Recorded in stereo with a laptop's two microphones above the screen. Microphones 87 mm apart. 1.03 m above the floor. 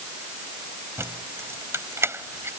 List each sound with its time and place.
1.0 s keys jangling: 30° right (ahead or behind)